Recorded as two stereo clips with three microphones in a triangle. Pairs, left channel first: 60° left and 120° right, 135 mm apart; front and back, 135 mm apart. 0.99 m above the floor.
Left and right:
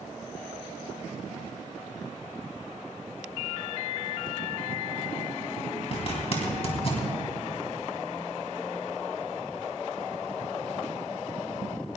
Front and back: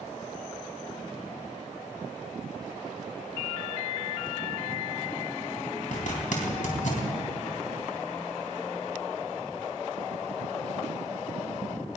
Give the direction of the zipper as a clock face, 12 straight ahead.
11 o'clock.